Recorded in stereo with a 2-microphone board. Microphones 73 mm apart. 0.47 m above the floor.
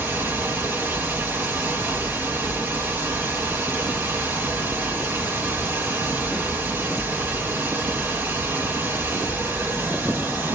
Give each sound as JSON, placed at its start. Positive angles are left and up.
{"t": 0.0, "sound": "running water", "side_deg": -30, "distance_m": 1.5}